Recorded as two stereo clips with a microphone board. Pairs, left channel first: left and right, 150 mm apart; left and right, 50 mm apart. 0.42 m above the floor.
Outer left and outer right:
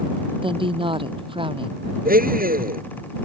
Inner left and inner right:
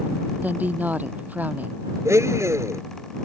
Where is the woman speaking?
35° right (ahead or behind).